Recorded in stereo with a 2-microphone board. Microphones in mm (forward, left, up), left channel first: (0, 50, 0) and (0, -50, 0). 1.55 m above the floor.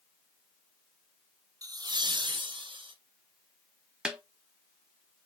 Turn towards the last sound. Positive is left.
turn(degrees=-10)  # may be behind; listen again after turning